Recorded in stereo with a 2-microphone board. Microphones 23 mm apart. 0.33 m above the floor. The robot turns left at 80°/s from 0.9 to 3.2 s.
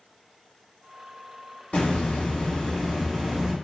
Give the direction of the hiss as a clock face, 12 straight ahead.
9 o'clock.